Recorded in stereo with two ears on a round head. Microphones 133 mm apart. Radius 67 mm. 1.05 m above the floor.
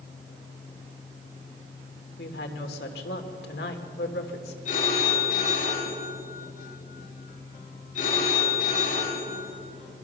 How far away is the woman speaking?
About 3 m.